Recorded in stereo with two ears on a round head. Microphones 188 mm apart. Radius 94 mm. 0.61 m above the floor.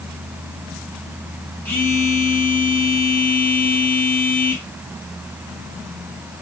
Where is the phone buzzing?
5° left (ahead or behind), 2.5 m.